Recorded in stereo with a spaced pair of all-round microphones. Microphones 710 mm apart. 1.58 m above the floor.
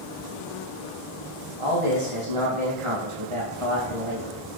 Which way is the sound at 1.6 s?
45° right (ahead or behind).